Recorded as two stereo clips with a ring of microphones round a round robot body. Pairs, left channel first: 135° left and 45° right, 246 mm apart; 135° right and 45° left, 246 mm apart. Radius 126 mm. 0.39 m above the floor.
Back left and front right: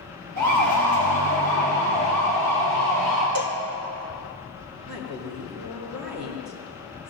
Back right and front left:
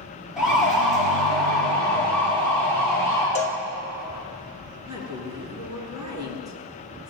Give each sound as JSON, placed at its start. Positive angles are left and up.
{"t": 0.4, "sound": "a siren", "azimuth_deg": -40, "distance_m": 8.5}
{"t": 3.4, "sound": "a cowbell", "azimuth_deg": -75, "distance_m": 1.9}
{"t": 4.9, "sound": "a woman speaking", "azimuth_deg": -30, "distance_m": 6.5}